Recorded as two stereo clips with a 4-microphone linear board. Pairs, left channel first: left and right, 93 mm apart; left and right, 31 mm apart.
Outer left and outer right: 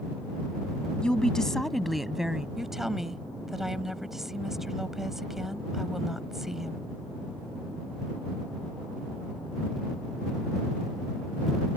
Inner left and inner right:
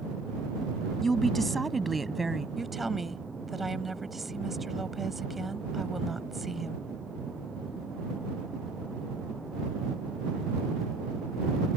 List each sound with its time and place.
1.0 s a woman speaking: 10° left (ahead or behind); by 2.5 s 5° right (ahead or behind)
2.6 s a woman speaking: 5° right (ahead or behind)